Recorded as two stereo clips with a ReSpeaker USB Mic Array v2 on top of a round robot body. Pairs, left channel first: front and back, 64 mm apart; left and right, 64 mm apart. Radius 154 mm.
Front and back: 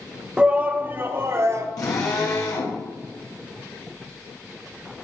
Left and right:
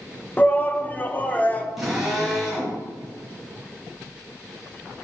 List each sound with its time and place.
0.4 s a shout: 115° left, 0.9 m; by 1.7 s 150° left, 1.3 m
1.8 s a drill: 5° right, 3.5 m